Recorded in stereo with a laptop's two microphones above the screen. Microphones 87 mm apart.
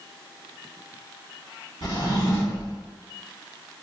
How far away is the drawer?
About 1.6 m.